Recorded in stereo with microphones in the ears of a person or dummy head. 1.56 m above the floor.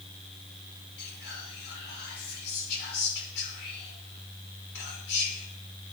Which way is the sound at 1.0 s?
60° left (ahead or behind).